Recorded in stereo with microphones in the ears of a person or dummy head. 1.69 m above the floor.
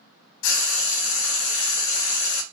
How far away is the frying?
About 0.7 m.